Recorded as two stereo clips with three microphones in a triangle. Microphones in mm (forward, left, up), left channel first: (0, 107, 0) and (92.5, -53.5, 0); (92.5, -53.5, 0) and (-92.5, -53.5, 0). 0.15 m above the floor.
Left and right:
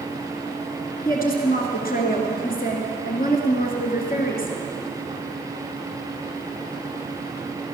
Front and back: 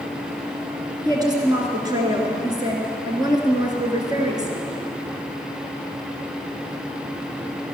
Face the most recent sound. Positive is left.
turn(degrees=120)